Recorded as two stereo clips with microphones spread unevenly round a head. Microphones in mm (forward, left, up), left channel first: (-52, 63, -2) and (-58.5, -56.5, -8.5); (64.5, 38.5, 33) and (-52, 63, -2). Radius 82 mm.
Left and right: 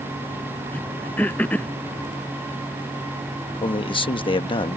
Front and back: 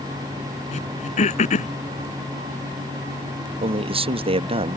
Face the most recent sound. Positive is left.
turn(degrees=135)